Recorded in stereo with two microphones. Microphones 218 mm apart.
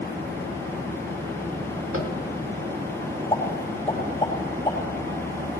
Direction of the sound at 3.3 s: 20° left (ahead or behind).